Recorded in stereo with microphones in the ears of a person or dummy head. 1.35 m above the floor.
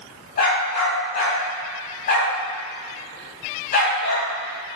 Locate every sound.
0.4 s a dog barking: 50° left (ahead or behind), 3 m